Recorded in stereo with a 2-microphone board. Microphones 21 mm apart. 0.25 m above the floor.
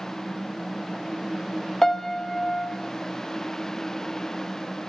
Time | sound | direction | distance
1.8 | a piano | 30° left (ahead or behind) | 0.7 m